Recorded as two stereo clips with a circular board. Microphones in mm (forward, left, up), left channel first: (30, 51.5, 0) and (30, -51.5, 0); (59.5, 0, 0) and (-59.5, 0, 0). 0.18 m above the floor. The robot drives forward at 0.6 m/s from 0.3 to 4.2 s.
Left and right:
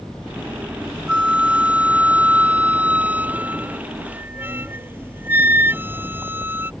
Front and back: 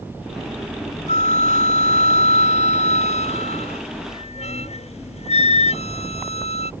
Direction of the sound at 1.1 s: 10° right.